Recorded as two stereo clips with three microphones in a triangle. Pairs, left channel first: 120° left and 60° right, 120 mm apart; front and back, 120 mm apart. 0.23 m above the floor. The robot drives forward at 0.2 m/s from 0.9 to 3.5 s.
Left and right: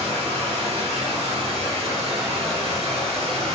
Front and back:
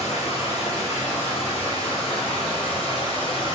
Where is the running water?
30° right, 2.0 m; by 3.5 s 40° right, 1.6 m.